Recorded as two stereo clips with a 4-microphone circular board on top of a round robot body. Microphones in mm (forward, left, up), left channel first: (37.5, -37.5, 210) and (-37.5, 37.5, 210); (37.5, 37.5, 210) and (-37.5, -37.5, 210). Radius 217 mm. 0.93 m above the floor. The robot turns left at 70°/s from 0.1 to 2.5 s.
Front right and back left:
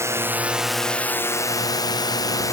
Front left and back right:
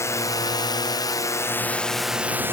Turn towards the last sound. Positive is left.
turn(degrees=-80)